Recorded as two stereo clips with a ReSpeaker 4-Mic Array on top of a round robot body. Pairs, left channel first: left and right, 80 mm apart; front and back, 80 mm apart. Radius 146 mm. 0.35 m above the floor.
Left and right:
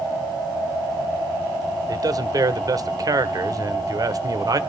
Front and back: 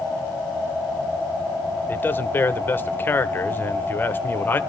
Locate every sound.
1.9 s a man speaking: 60° right, 1.4 m